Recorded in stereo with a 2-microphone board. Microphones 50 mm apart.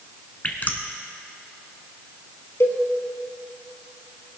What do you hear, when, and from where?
0.4 s dripping: 35° left (ahead or behind), 1.2 m
2.6 s a cowbell: 55° left (ahead or behind), 1.7 m